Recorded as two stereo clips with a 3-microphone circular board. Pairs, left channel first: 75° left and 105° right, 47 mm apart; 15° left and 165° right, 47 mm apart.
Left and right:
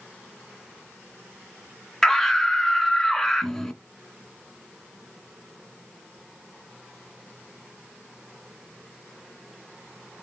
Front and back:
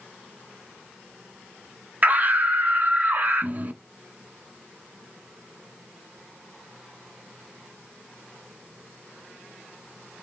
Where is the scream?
160° left, 1.5 m.